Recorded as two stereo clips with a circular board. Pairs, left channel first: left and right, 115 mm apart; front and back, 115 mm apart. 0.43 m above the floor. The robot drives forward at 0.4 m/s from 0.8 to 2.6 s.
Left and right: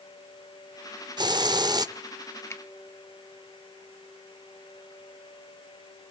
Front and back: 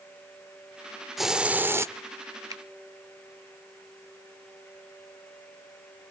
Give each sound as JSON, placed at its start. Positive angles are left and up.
{"t": 1.2, "sound": "a hiss", "azimuth_deg": -90, "distance_m": 0.6}
{"t": 2.5, "sound": "a finger snap", "azimuth_deg": 145, "distance_m": 0.9}